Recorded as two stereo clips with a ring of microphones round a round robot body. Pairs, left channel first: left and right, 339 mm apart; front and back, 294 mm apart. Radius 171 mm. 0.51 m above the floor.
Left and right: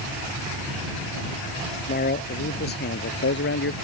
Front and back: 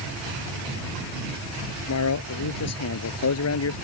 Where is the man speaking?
25° left; by 3.7 s 35° left.